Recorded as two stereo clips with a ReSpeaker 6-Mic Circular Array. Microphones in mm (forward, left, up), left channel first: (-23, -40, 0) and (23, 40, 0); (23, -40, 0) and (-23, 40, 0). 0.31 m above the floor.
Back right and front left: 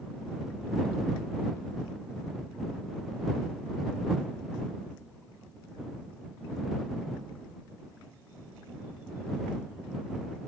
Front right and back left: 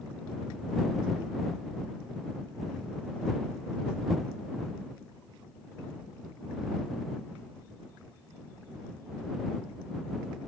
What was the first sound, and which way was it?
Only background noise.